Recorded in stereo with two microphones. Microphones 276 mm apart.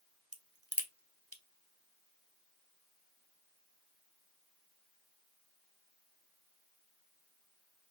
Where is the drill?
I don't hear a drill.